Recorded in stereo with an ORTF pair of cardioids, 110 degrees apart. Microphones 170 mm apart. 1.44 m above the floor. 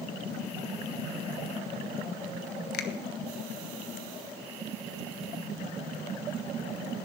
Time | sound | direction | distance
2.7 | a finger snap | 70° left | 1.2 m